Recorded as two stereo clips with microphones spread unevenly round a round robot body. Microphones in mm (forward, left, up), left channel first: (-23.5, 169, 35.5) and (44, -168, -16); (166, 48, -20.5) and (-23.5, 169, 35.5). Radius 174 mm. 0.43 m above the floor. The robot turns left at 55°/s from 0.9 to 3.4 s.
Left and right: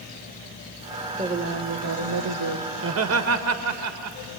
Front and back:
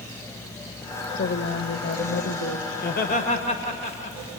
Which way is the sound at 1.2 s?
10° right.